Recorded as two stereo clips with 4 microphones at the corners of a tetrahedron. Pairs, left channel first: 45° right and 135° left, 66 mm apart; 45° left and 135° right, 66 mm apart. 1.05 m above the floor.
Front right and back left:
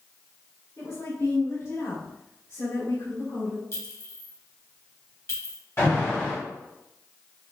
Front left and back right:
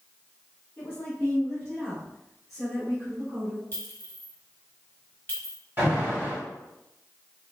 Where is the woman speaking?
20° right, 2.5 m; by 3.6 s 50° right, 3.5 m.